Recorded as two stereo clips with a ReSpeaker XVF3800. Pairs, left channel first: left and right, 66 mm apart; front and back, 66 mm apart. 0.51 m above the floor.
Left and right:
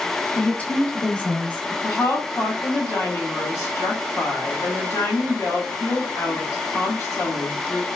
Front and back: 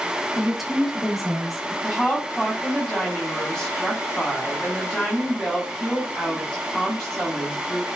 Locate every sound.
0.3 s a woman speaking: 95° left, 0.6 m
1.8 s a woman speaking: 80° left, 1.2 m